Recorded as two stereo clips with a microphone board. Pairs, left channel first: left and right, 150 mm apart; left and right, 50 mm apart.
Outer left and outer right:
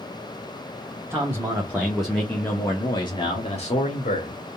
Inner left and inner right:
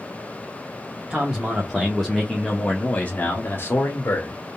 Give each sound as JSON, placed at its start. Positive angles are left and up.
{"t": 1.1, "sound": "a man speaking", "side_deg": -20, "distance_m": 1.4}